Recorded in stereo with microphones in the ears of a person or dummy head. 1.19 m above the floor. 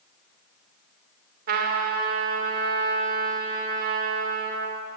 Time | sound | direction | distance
1.5 | a trumpet | 55° right (ahead or behind) | 2.5 m